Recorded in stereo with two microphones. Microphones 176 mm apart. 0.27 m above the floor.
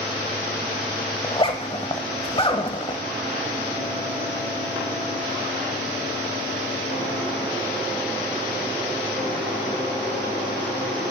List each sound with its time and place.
1.2 s a zipper: 30° left (ahead or behind), 0.8 m